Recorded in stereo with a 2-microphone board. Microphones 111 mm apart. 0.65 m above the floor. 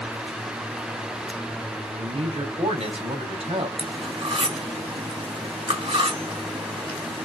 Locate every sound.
1.9 s a man speaking: 70° right (ahead or behind), 4 m
3.8 s cutlery clinking: 55° right (ahead or behind), 2.5 m